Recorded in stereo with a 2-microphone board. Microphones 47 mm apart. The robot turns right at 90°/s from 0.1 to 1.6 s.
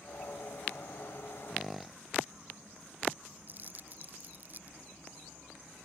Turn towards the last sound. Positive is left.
turn(degrees=-40)  # may be behind; listen again after turning